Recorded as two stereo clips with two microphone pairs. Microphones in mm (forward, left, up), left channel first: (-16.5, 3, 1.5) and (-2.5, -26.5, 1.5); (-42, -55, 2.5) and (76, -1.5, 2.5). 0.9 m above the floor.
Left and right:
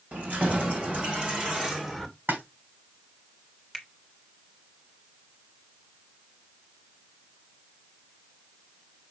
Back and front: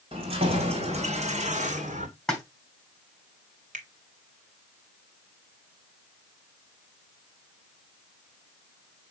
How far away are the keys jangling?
About 3.5 m.